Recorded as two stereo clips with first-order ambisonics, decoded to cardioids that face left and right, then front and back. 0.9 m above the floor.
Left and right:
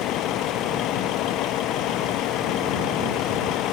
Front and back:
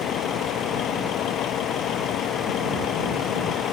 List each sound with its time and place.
0.0 s a vehicle: 45° left